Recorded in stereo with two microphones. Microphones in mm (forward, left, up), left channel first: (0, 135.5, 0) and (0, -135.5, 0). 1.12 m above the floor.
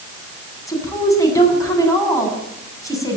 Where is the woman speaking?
10° left (ahead or behind), 8 m.